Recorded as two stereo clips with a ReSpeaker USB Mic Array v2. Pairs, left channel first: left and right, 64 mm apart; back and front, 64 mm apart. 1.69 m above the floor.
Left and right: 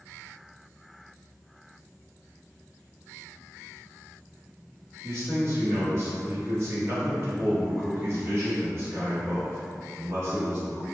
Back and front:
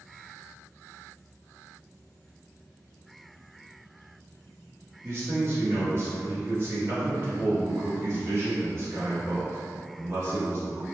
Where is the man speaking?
45° right, 1.4 m.